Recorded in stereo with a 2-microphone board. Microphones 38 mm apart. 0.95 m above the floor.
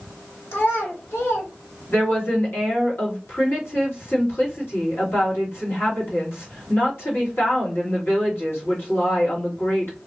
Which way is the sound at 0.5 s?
80° left.